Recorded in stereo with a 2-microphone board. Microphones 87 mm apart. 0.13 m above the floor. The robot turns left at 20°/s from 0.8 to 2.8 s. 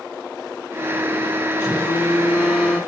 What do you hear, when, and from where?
1.6 s a phone buzzing: 15° right (ahead or behind), 1.8 m; by 2.8 s 5° left (ahead or behind), 1.8 m